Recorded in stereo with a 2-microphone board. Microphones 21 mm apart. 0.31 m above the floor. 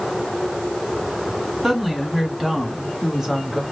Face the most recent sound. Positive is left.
turn(degrees=-25)  # may be behind; listen again after turning